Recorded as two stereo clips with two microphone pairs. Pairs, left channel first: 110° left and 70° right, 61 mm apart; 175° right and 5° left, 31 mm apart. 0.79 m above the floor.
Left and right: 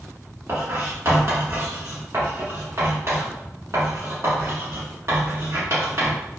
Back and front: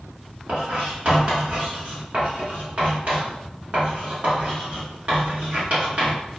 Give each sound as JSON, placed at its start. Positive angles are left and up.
{"t": 0.5, "sound": "writing", "azimuth_deg": -30, "distance_m": 1.4}